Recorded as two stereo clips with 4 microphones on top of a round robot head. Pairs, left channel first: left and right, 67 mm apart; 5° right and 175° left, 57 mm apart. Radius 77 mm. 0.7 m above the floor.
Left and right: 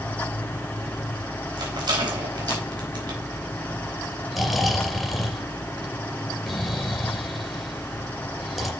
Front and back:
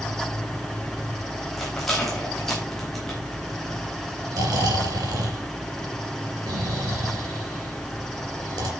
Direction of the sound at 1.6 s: 95° right.